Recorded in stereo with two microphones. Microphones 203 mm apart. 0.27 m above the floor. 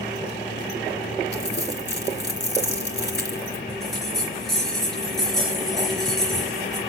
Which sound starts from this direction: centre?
A bell, at 3.7 s.